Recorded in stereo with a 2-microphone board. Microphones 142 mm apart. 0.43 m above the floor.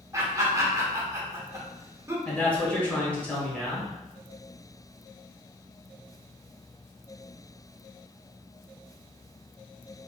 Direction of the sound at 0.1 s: 20° right (ahead or behind).